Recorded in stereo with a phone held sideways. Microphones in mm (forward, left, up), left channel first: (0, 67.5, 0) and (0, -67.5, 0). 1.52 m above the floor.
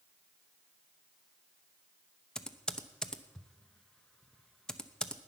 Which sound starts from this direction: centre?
Typing on a keyboard, at 2.4 s.